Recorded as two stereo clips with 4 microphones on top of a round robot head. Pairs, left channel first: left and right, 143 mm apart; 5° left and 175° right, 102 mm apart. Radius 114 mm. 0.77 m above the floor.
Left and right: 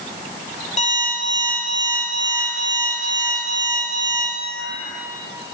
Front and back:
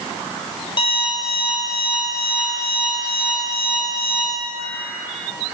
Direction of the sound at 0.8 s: 50° left.